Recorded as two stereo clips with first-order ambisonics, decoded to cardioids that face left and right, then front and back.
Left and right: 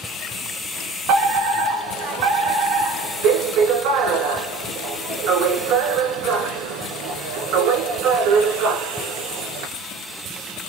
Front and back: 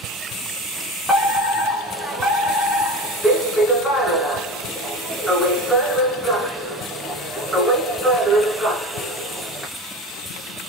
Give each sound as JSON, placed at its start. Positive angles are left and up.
{"t": 1.1, "sound": "a fire alarm", "azimuth_deg": -95, "distance_m": 2.5}